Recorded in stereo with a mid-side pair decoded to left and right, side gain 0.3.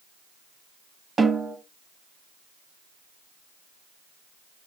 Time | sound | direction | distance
1.2 | a snare drum | 50° right | 1.4 m